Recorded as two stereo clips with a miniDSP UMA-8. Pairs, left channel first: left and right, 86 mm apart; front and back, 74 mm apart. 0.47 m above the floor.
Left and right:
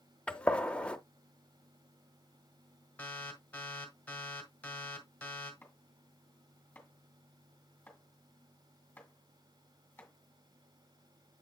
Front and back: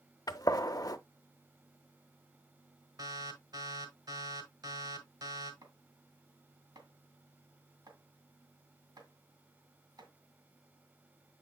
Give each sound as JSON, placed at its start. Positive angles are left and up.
{"t": 0.3, "sound": "a gunshot", "azimuth_deg": 15, "distance_m": 0.7}
{"t": 3.0, "sound": "an alarm", "azimuth_deg": 160, "distance_m": 1.8}
{"t": 5.6, "sound": "chopping", "azimuth_deg": 160, "distance_m": 2.5}